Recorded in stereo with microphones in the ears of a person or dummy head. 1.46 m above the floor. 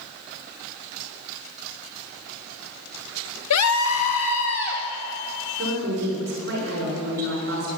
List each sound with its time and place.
3.5 s a scream: 85° left, 0.9 m; by 4.8 s 60° left (ahead or behind), 2.5 m
5.6 s a woman speaking: 55° right (ahead or behind), 6.5 m